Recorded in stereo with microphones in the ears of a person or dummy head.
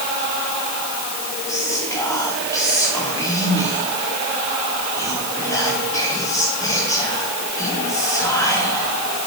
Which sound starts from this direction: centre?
Whispering, at 1.5 s.